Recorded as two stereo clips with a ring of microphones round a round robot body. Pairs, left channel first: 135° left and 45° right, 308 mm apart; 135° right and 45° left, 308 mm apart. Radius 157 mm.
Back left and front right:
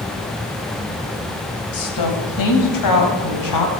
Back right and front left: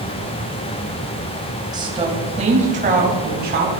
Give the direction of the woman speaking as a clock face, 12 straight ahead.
8 o'clock.